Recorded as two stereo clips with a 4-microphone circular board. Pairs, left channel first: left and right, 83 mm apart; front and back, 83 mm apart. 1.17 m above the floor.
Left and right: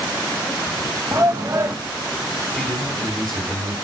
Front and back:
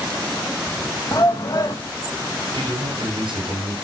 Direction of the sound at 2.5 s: 175° left.